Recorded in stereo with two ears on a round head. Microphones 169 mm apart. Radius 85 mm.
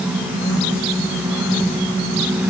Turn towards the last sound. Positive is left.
No sound to turn to.